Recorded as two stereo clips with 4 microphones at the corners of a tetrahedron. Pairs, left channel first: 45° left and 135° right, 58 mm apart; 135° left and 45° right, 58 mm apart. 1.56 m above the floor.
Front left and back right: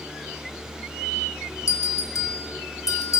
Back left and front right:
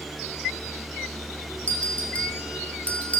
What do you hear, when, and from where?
1.7 s a bell: 65° left, 2.5 m